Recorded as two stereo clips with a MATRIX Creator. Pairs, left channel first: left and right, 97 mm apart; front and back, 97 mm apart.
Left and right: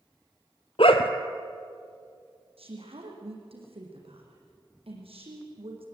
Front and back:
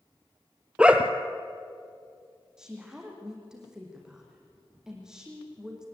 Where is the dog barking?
100° left, 1.5 m.